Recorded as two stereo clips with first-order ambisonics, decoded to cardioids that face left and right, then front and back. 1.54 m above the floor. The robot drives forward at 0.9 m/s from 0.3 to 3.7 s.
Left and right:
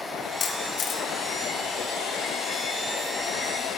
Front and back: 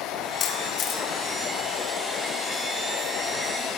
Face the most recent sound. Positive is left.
turn(degrees=125)